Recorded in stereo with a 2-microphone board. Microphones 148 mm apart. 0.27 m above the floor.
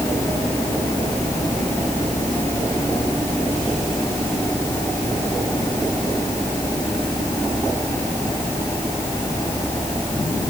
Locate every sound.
Only background noise.